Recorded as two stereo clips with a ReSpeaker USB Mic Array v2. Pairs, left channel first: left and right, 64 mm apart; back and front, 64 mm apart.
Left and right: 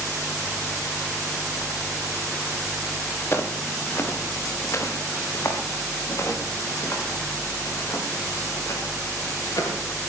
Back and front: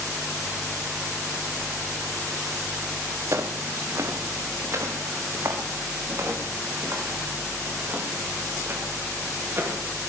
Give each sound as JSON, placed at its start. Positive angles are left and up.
{"t": 3.3, "sound": "footsteps", "azimuth_deg": 35, "distance_m": 2.5}